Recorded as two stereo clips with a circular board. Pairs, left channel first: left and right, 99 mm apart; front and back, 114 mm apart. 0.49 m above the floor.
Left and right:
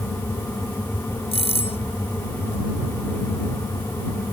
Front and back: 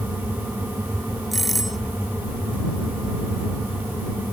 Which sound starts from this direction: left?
A doorbell, at 1.3 s.